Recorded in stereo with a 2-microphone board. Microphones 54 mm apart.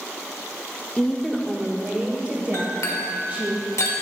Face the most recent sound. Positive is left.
turn(degrees=80)